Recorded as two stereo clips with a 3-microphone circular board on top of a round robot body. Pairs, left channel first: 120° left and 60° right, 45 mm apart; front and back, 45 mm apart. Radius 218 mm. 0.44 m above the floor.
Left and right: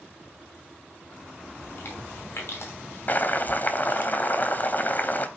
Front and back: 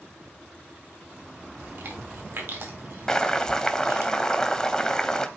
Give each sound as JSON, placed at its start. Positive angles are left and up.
{"t": 1.6, "sound": "chewing", "azimuth_deg": 150, "distance_m": 4.0}
{"t": 3.1, "sound": "boiling", "azimuth_deg": 75, "distance_m": 1.6}